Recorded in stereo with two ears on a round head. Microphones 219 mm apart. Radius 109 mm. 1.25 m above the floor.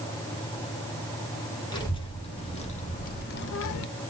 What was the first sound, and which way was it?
A child speaking, 20° left (ahead or behind).